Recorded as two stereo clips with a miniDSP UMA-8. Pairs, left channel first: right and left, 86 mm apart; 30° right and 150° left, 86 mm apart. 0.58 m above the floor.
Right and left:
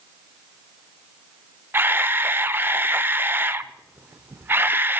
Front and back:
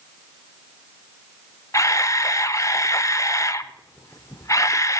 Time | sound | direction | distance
1.7 | a camera shutter | 20° left | 0.5 m